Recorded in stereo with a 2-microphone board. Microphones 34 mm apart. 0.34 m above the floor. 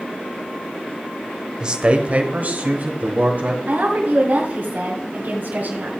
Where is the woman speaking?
55° right (ahead or behind), 1.9 m.